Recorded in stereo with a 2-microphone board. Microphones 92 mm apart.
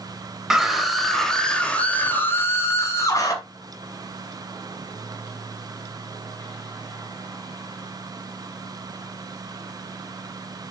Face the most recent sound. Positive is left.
turn(degrees=40)  # may be behind; listen again after turning